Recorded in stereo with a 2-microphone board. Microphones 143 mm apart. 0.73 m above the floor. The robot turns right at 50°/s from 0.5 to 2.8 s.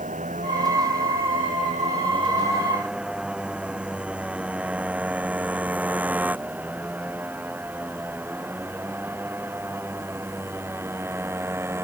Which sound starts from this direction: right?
A motorcycle, at 0.0 s.